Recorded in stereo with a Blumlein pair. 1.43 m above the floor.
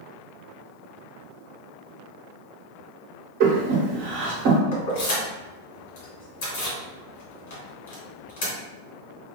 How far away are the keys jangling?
About 1.3 m.